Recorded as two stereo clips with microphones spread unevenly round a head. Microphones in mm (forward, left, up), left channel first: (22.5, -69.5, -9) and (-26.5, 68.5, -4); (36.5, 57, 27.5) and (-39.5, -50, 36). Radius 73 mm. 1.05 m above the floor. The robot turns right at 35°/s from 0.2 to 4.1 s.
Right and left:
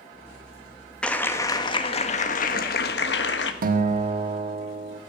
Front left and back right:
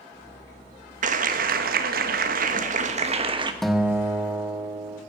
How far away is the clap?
About 1.3 m.